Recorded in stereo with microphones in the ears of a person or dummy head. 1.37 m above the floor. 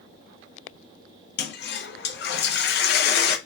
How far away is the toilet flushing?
About 0.7 m.